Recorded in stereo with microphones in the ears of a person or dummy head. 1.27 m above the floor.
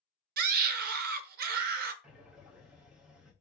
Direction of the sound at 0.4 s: 50° right (ahead or behind).